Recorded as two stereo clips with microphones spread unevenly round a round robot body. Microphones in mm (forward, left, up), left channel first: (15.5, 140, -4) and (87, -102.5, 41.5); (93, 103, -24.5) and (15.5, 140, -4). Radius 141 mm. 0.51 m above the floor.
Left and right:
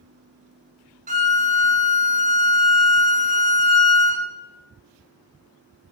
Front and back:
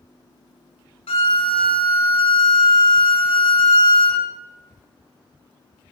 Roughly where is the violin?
Ahead.